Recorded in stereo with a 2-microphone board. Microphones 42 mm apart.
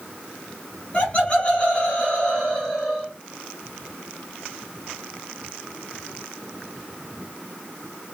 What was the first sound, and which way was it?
Laughter, 30° left (ahead or behind).